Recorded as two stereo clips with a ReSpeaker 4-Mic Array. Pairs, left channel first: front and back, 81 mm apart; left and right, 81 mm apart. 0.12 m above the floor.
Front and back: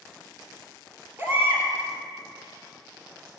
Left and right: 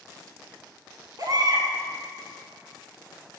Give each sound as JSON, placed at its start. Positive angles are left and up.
{"t": 1.2, "sound": "a baby crying", "azimuth_deg": -120, "distance_m": 1.7}